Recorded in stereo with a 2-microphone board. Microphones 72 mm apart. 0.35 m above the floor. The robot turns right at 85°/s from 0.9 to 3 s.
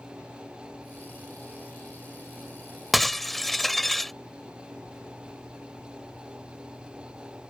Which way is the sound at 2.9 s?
5° right (ahead or behind).